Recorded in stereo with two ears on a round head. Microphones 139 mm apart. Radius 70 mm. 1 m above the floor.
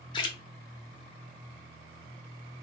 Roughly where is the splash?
Left.